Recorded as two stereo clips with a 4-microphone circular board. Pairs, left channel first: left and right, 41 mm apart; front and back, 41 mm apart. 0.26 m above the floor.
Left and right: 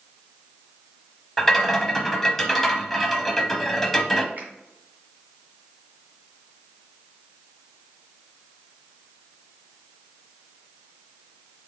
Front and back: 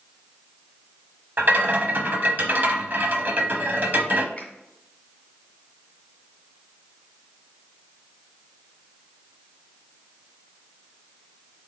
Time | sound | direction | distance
1.4 | a rattle | 175° left | 0.7 m
4.4 | a finger snap | 55° right | 2 m